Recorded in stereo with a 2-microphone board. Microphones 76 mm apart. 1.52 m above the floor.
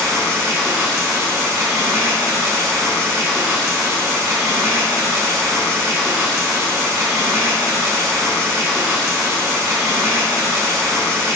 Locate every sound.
0.0 s running water: 40° right (ahead or behind), 1.0 m